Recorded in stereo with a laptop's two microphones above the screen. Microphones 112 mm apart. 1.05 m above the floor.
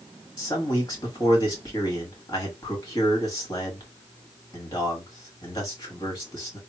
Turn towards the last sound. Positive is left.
turn(degrees=35)  # may be behind; listen again after turning